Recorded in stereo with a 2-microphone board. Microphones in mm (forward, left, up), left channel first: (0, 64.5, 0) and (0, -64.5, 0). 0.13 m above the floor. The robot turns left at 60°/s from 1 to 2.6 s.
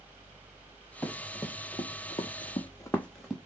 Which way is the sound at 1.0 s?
15° left (ahead or behind).